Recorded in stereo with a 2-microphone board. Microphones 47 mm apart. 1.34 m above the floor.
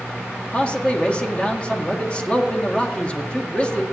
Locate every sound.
0.5 s a man speaking: 25° left (ahead or behind), 1.9 m